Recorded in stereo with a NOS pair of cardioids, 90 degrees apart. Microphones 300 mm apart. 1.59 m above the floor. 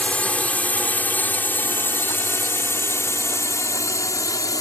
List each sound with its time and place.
0.0 s a drone: 5° left; by 4.6 s 10° left